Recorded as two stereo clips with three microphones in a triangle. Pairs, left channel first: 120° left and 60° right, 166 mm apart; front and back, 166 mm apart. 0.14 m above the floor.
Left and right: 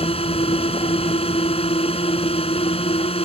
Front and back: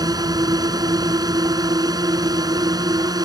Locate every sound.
0.0 s a drone: 130° left